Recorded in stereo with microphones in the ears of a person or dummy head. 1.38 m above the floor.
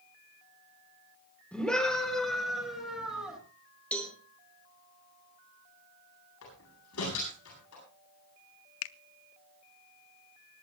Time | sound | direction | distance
1.5 | a scream | 5° left (ahead or behind) | 3.5 m
3.9 | a cowbell | 5° left (ahead or behind) | 2 m
6.4 | a door slam | 80° left | 9 m
8.8 | a finger snap | 70° left (ahead or behind) | 0.6 m